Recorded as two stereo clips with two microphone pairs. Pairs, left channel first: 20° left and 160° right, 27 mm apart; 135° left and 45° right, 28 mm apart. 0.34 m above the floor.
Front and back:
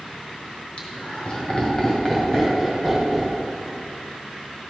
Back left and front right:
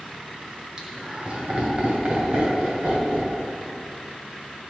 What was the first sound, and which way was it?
Laughter, 15° left.